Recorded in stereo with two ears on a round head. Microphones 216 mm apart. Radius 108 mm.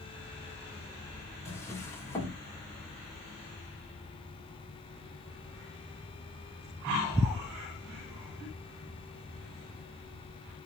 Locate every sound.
1.4 s a drawer: 10° left (ahead or behind), 2 m